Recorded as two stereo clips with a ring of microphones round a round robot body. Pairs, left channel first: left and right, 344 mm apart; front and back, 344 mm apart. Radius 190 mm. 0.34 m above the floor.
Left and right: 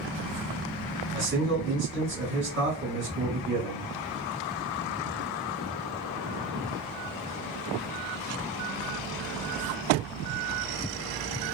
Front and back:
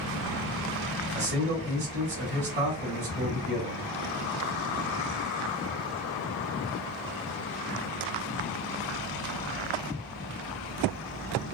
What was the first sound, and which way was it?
A man speaking, 135° right.